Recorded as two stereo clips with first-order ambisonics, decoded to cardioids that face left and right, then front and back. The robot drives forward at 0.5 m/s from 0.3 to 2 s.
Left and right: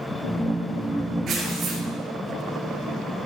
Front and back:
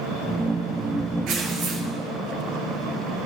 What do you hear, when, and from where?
1.3 s tearing paper: 145° right, 4 m; by 1.8 s 150° right, 4 m